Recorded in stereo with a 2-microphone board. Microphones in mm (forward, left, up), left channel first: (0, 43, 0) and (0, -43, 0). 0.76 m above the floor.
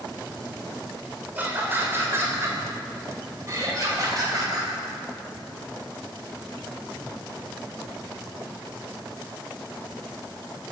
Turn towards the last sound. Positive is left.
turn(degrees=-45)  # may be behind; listen again after turning